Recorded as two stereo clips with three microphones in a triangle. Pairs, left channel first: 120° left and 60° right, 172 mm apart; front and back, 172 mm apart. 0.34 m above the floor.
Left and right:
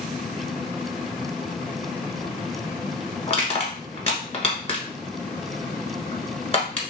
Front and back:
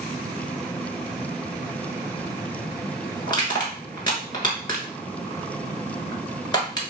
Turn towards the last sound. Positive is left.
turn(degrees=65)